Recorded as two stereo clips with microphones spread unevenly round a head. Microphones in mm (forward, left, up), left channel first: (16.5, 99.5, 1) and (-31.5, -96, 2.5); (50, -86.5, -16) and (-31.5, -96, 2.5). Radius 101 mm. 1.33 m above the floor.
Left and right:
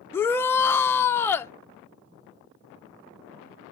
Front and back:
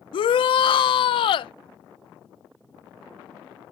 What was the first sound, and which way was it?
A shout, 5° right.